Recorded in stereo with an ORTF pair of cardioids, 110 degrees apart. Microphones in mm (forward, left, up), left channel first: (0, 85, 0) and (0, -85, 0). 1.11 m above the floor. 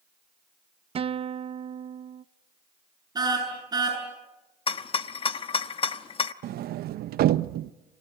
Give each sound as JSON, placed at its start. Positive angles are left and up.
{"t": 0.9, "sound": "a guitar", "azimuth_deg": -35, "distance_m": 0.6}
{"t": 3.1, "sound": "a car horn", "azimuth_deg": -25, "distance_m": 8.0}
{"t": 4.7, "sound": "a rattle", "azimuth_deg": 35, "distance_m": 1.0}
{"t": 6.4, "sound": "a sliding door", "azimuth_deg": -65, "distance_m": 0.8}